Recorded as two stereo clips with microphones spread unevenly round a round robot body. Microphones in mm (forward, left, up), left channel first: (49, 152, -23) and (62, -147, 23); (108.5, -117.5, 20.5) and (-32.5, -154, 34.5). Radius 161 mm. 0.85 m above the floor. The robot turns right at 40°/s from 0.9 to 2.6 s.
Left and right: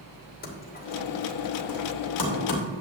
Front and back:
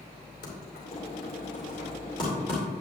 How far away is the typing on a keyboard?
About 2.5 m.